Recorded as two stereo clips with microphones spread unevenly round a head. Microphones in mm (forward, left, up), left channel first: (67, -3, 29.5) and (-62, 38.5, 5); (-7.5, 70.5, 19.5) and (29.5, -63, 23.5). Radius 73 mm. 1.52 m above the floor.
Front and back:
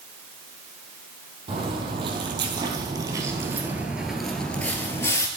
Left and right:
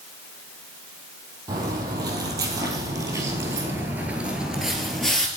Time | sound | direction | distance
1.5 | footsteps | 135° right | 3 m